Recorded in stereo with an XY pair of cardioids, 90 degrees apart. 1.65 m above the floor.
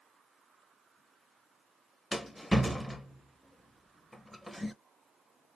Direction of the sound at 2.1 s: Straight ahead.